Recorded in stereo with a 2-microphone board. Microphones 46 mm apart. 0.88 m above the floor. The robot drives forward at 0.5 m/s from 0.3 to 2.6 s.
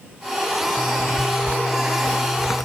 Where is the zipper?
45° left (ahead or behind).